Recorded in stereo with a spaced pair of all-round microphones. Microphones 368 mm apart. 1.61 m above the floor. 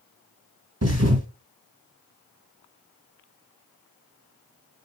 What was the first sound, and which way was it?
A thud, 45° right (ahead or behind).